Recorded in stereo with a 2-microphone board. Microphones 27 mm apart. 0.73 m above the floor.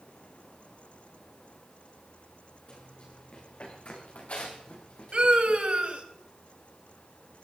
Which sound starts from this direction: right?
A scream, at 5.1 s.